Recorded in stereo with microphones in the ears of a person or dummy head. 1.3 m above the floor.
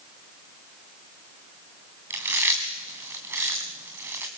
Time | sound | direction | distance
2.1 | chewing | 15° right (ahead or behind) | 2.5 m